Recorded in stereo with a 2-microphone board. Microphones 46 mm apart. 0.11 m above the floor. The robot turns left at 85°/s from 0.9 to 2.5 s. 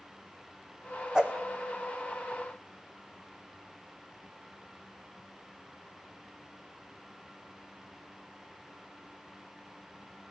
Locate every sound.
1.1 s a whoosh: 15° right (ahead or behind), 1.9 m; by 1.4 s 30° right (ahead or behind), 1.9 m